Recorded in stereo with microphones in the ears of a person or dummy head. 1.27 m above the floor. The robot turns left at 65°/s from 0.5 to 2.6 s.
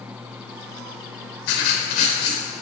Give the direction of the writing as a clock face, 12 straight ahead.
9 o'clock.